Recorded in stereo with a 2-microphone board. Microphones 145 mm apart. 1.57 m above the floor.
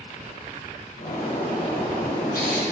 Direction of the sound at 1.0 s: 80° left.